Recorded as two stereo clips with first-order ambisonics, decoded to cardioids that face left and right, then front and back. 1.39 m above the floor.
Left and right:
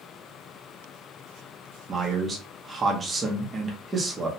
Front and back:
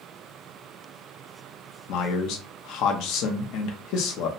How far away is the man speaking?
About 0.6 m.